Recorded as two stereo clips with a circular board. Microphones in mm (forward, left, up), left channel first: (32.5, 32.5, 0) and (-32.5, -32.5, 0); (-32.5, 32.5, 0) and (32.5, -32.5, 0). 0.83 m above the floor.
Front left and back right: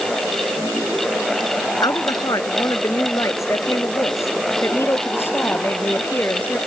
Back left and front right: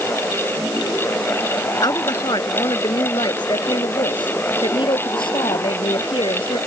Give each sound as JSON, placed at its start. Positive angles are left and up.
{"t": 1.8, "sound": "a woman speaking", "azimuth_deg": 90}